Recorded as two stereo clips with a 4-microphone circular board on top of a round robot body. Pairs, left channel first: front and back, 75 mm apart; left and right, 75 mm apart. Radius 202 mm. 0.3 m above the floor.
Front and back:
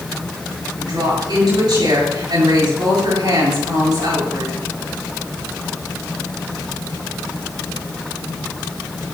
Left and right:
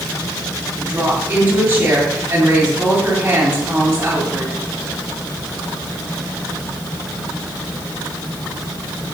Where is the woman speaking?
160° right, 8.5 m.